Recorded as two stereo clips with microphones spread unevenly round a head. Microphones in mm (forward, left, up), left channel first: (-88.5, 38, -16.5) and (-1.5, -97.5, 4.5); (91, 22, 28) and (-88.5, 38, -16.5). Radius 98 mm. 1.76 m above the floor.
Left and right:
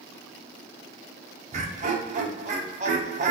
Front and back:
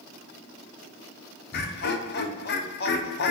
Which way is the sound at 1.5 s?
15° right.